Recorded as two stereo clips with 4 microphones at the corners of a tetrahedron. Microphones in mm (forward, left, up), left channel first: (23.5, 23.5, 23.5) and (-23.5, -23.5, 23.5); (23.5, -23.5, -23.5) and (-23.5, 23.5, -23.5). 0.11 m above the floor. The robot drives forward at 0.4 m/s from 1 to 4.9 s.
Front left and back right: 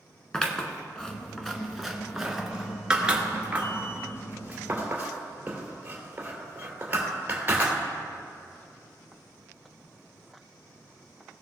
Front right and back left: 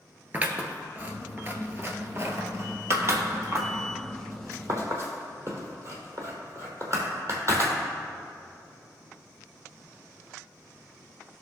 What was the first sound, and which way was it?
Scissors, 115° left.